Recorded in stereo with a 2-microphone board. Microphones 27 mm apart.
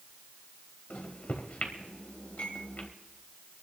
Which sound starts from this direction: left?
A microwave, at 0.9 s.